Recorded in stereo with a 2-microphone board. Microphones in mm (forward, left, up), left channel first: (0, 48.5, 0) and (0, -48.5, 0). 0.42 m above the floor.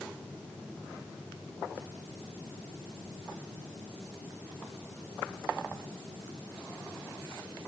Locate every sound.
Only background noise.